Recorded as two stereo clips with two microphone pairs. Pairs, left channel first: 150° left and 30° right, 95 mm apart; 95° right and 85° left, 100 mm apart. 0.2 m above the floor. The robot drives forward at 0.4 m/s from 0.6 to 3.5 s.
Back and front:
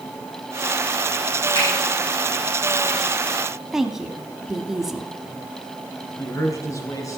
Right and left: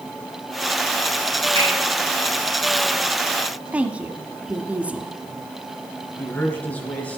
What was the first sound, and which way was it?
A finger snap, 120° left.